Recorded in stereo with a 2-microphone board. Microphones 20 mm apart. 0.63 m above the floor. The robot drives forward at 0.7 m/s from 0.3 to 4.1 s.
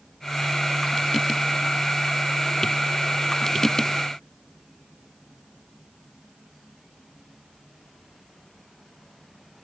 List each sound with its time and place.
Only background noise.